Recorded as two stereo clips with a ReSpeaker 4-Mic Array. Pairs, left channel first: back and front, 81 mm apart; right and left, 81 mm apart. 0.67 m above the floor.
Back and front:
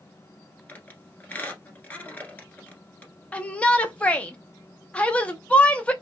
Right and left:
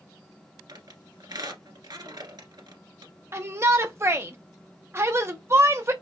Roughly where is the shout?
Behind left.